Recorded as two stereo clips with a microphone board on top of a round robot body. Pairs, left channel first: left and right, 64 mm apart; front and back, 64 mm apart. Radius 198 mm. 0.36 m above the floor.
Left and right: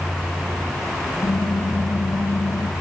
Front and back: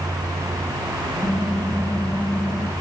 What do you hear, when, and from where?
1.2 s typing on a keyboard: 105° left, 3 m